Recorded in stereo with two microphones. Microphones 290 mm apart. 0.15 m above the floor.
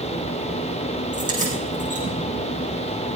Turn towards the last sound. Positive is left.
turn(degrees=-25)  # may be behind; listen again after turning